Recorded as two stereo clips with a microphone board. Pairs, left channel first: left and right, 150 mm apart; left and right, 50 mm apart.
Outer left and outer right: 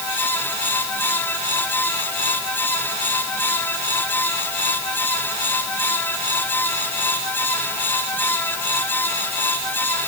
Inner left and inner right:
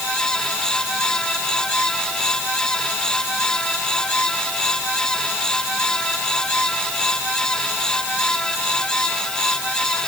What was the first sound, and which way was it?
Only background noise.